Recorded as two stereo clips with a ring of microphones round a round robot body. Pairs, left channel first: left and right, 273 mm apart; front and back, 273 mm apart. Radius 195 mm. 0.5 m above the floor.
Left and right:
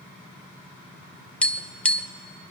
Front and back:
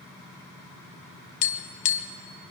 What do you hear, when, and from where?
1.4 s tapping: 5° left, 1.2 m